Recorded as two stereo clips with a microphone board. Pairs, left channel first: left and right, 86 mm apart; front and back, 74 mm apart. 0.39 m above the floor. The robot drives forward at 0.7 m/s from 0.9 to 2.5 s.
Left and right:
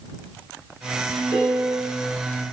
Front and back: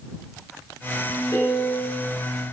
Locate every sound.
1.3 s a piano: 40° right, 1.9 m; by 2.0 s 50° right, 1.5 m